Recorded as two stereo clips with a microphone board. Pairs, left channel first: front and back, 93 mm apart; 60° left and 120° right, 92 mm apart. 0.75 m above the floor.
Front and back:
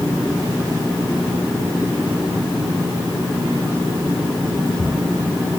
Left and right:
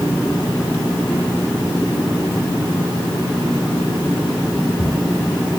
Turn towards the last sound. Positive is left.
No sound to turn to.